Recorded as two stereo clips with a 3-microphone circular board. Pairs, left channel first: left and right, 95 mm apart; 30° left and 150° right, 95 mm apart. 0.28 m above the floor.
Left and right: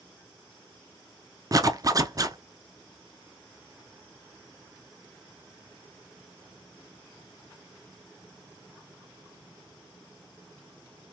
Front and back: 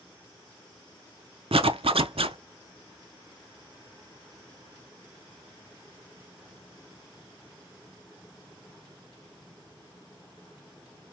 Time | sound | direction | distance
1.5 | a zipper | 140° right | 0.5 m